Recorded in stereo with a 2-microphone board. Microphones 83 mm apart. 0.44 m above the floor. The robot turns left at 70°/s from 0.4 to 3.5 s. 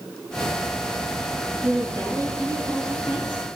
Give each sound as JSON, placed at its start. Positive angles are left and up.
{"t": 1.6, "sound": "a woman speaking", "azimuth_deg": -165, "distance_m": 5.5}